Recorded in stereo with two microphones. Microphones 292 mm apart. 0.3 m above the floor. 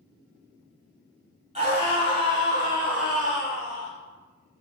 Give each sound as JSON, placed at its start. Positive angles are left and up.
{"t": 1.6, "sound": "a scream", "side_deg": -25, "distance_m": 1.2}